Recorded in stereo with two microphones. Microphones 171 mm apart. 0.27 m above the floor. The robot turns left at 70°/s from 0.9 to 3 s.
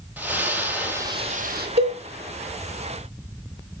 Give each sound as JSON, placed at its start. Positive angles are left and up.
{"t": 0.2, "sound": "a splash", "azimuth_deg": -10, "distance_m": 2.5}
{"t": 1.8, "sound": "a cowbell", "side_deg": -65, "distance_m": 3.0}